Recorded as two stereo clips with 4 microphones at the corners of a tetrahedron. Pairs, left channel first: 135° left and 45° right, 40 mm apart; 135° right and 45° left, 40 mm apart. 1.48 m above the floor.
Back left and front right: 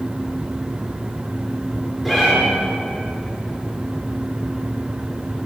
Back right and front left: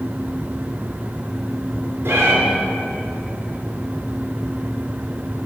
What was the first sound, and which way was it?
A cat meowing, 50° left.